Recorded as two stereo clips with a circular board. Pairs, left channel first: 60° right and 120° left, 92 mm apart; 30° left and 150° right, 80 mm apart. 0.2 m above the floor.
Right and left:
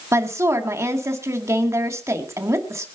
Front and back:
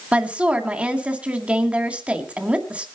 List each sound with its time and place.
0.1 s a woman speaking: 150° left, 1.8 m